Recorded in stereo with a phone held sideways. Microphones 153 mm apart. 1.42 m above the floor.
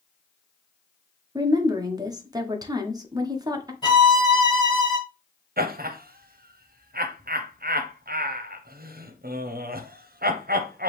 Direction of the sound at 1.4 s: 25° right (ahead or behind).